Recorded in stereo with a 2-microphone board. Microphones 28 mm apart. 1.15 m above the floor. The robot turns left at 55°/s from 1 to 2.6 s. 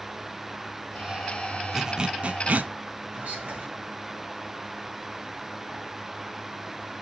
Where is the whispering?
55° right (ahead or behind), 1.7 m.